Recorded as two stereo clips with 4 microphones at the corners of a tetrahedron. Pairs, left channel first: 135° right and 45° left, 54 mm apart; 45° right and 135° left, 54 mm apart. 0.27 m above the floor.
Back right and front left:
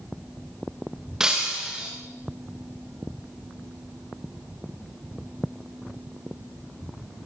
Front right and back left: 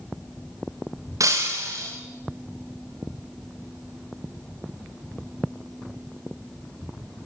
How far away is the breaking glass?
About 7 m.